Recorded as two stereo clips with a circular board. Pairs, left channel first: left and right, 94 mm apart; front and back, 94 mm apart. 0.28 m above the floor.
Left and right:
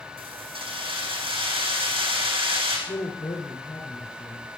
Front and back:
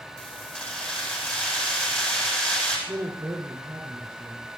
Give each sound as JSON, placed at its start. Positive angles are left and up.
{"t": 0.2, "sound": "keys jangling", "azimuth_deg": -75, "distance_m": 10.0}
{"t": 2.9, "sound": "a woman speaking", "azimuth_deg": 120, "distance_m": 6.0}